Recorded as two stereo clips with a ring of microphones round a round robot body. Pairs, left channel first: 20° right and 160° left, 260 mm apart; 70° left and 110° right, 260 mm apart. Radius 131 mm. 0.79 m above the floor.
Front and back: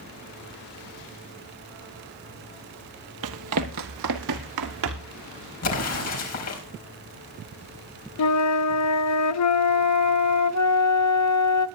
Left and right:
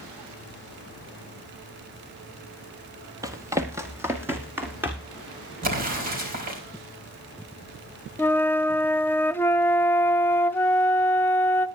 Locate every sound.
3.2 s running footsteps: 175° left, 1.1 m; by 5.2 s 165° left, 3 m
5.6 s an explosion: 55° right, 4.5 m
8.2 s a flute: 15° right, 0.6 m